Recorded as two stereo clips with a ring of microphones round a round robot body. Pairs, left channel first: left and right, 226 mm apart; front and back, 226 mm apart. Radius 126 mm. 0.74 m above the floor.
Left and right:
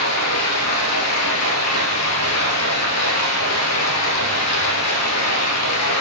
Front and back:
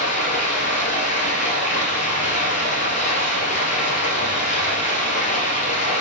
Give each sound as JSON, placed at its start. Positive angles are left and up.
{"t": 0.0, "sound": "running water", "azimuth_deg": 65, "distance_m": 1.9}